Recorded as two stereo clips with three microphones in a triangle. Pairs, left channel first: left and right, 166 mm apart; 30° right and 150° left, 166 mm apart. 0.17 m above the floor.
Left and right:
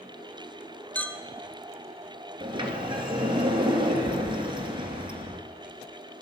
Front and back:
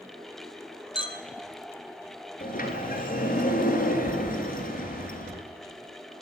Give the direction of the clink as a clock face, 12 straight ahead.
12 o'clock.